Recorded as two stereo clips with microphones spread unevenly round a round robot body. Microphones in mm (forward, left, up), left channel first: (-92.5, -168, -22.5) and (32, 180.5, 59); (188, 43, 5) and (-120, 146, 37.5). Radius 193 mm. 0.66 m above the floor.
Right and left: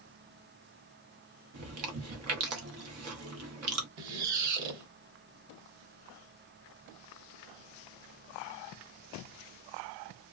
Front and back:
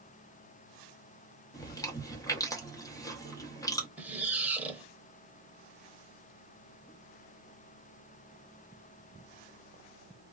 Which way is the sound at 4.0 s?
80° left.